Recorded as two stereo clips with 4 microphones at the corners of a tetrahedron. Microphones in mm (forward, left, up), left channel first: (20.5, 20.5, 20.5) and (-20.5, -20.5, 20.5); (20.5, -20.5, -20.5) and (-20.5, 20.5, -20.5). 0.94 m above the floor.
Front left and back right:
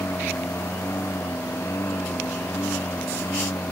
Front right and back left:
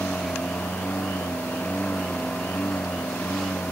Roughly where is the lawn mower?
Ahead.